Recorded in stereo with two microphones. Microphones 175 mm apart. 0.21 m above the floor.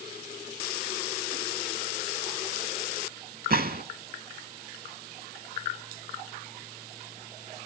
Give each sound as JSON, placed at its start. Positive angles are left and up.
{"t": 3.5, "sound": "a gunshot", "side_deg": -60, "distance_m": 0.5}